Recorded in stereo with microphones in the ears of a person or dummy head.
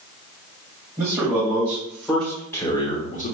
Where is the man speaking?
15° right (ahead or behind), 1.9 m; by 3.3 s 50° left (ahead or behind), 0.9 m.